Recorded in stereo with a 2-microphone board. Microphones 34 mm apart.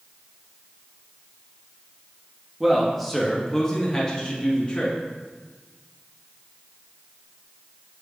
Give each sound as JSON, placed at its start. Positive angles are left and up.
{"t": 2.6, "sound": "a man speaking", "side_deg": -5, "distance_m": 1.2}